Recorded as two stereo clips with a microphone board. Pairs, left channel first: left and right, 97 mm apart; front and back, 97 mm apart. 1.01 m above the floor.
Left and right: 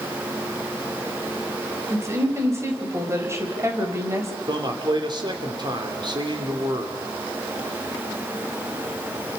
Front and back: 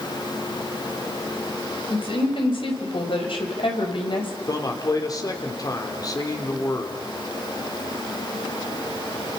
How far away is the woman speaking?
About 4.5 m.